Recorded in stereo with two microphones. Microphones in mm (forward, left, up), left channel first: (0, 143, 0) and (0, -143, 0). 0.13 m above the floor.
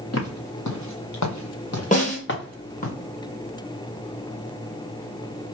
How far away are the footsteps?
About 1.6 m.